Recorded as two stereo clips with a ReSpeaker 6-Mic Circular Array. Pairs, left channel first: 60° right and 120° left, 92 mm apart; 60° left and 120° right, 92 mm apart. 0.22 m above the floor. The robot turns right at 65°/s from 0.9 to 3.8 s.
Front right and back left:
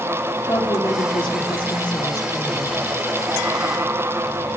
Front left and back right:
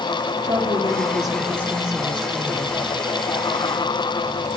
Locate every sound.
0.4 s a woman speaking: 110° right, 5 m; by 3.0 s 25° left, 5 m